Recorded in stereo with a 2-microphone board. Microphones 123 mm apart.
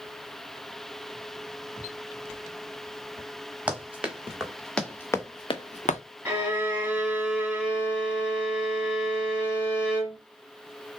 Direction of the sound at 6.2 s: 10° right (ahead or behind).